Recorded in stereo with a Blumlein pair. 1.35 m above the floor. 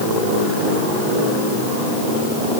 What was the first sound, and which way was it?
Only background noise.